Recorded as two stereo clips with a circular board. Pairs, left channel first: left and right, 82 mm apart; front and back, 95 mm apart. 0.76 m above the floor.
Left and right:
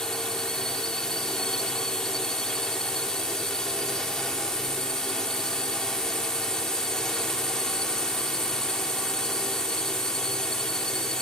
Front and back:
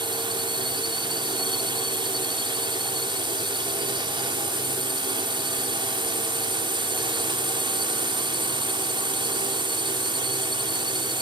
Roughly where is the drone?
Behind.